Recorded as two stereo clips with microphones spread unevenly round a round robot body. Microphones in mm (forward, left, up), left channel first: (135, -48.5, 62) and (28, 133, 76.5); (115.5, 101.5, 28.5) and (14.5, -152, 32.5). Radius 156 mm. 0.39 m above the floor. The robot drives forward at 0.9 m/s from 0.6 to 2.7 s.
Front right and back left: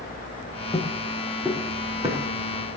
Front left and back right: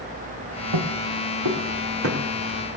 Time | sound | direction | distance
0.7 | footsteps | 135° right | 2.5 m